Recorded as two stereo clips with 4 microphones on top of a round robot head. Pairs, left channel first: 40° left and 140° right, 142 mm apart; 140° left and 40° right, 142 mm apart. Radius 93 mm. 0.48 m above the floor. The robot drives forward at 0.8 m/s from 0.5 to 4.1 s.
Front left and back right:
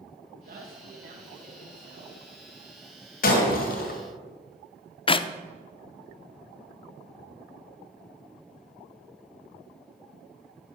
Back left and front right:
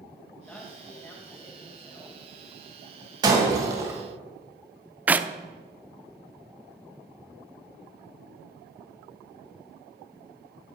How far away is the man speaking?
About 2 m.